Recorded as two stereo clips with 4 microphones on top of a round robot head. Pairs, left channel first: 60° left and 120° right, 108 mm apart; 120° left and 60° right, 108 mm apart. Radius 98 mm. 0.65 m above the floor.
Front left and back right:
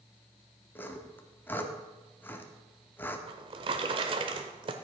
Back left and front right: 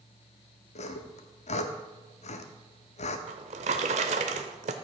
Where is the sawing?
130° left, 0.7 m.